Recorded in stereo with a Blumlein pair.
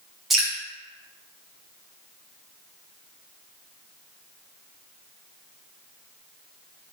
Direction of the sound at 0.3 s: 10° right.